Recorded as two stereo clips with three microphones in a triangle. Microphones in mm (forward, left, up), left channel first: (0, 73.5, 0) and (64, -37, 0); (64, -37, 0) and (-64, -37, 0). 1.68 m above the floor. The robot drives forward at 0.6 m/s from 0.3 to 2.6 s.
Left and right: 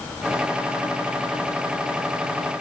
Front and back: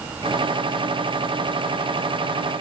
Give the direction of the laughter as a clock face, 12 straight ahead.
I don't hear laughter.